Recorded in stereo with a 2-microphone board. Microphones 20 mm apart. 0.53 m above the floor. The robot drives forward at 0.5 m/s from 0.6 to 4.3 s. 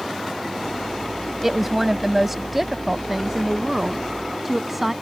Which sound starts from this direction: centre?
A woman speaking, at 1.4 s.